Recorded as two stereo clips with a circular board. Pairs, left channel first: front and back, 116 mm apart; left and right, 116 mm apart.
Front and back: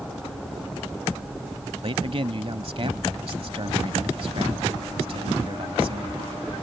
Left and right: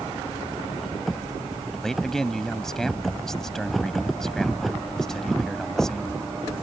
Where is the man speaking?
175° left.